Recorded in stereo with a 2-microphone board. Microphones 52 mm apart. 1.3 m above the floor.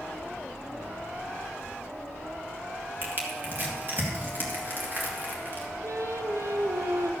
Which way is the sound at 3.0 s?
40° right (ahead or behind).